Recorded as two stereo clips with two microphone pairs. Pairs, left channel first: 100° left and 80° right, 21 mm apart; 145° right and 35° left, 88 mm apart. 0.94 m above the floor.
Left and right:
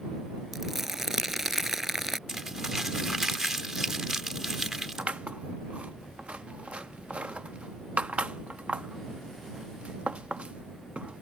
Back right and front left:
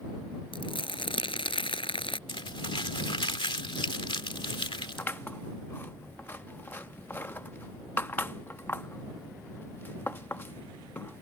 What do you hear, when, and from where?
0.5 s crumpling: 155° right
2.3 s crumpling: 150° right
5.0 s scissors: 80° right